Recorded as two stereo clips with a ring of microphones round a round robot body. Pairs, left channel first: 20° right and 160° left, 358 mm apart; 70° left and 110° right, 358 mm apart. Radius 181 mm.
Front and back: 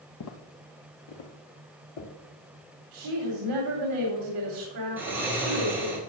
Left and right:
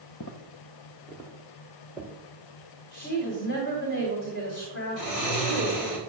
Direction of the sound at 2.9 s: 125° left.